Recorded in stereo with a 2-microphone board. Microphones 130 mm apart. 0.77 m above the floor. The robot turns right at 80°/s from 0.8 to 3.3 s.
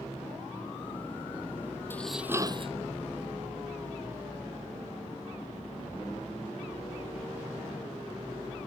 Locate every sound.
1.9 s dishes clattering: 165° left; by 2.7 s 130° right